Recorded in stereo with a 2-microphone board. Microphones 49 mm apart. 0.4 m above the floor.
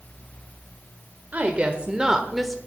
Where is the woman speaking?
30° right (ahead or behind), 1.2 m; by 2.6 s 5° left (ahead or behind), 1.0 m.